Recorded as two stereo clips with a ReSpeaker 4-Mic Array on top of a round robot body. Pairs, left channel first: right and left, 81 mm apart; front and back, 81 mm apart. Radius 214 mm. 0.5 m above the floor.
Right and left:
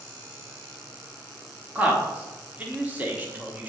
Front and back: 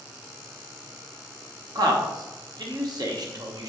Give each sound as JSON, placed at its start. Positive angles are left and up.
{"t": 1.8, "sound": "a man speaking", "azimuth_deg": 160, "distance_m": 1.5}